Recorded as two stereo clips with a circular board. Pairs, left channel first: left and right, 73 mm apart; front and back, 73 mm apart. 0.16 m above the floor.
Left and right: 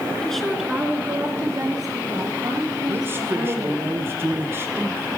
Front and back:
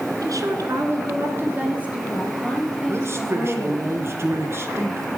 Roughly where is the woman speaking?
Behind.